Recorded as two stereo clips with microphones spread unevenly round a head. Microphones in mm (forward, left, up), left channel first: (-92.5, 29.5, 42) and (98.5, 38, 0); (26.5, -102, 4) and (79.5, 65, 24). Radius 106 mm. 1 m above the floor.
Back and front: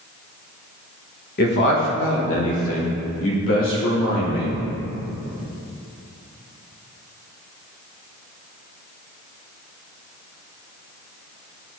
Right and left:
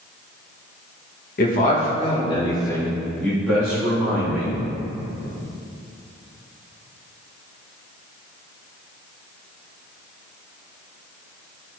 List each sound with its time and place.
1.4 s a man speaking: 130° right, 1.1 m; by 4.5 s 155° left, 2.5 m